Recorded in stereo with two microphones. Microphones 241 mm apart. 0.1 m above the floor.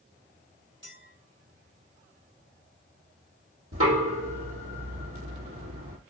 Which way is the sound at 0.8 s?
50° right (ahead or behind).